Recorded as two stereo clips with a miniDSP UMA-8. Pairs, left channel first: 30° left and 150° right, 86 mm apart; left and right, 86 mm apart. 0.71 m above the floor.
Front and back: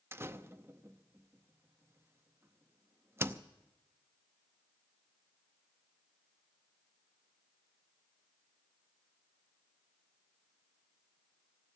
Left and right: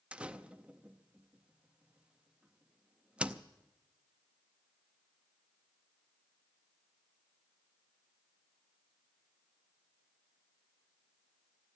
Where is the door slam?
155° right, 0.6 m.